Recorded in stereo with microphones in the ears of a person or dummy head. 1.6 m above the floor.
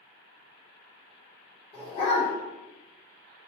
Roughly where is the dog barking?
Left.